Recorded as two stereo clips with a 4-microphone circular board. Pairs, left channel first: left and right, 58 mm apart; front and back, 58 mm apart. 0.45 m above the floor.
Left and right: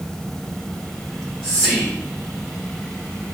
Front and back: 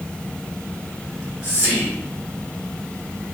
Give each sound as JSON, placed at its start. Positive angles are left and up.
{"t": 1.1, "sound": "whispering", "azimuth_deg": 15, "distance_m": 1.2}